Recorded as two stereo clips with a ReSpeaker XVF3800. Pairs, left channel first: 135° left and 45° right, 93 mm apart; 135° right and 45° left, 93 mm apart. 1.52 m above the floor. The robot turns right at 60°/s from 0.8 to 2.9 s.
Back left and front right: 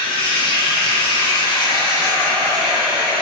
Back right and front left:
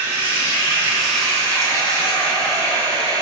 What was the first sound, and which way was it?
Running water, 115° left.